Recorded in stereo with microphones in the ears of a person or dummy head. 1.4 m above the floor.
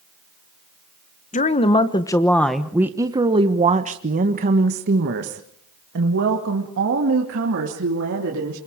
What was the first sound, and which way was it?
A woman speaking, 30° left (ahead or behind).